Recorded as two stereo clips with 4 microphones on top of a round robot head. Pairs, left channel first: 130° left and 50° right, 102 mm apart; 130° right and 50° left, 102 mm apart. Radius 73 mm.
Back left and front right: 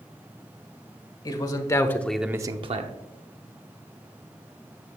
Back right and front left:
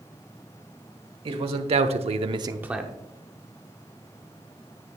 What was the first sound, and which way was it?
A man speaking, 80° left.